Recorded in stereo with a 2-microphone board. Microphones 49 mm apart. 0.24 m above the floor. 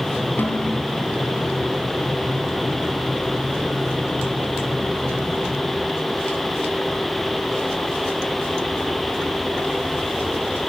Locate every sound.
0.4 s a snare drum: 45° left (ahead or behind), 2.5 m